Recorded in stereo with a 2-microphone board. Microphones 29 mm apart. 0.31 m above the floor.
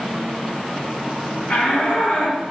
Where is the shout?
55° left (ahead or behind), 2.5 m.